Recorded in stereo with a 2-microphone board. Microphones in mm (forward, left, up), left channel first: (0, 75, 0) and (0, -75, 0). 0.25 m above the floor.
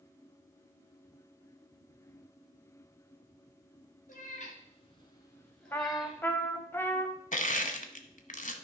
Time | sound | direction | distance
4.1 | a cat meowing | 60° left (ahead or behind) | 2.0 m
5.7 | a trumpet | 15° left (ahead or behind) | 0.8 m
7.3 | crushing | 60° left (ahead or behind) | 0.9 m